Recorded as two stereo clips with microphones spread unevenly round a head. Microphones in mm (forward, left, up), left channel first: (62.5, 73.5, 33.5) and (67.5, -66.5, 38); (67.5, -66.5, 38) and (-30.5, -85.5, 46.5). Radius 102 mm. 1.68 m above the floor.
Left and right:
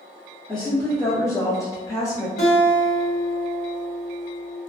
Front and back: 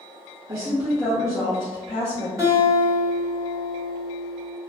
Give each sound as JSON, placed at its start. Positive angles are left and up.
{"t": 0.5, "sound": "a woman speaking", "azimuth_deg": 180, "distance_m": 0.6}
{"t": 2.4, "sound": "a guitar", "azimuth_deg": 85, "distance_m": 1.3}